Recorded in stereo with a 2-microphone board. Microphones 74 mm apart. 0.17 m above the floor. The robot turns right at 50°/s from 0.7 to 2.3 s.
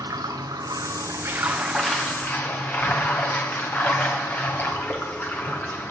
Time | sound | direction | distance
0.0 | running water | 55° right | 3.5 m